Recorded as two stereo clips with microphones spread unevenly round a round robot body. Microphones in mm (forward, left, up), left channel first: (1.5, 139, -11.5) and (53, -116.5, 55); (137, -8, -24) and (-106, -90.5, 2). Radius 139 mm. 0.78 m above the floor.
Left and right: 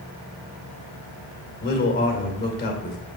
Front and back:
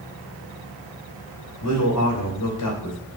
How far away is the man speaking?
About 2.5 m.